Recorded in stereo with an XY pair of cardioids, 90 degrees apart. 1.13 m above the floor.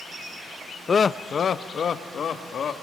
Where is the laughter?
40° left, 0.5 m; by 2.7 s 60° left, 1.6 m.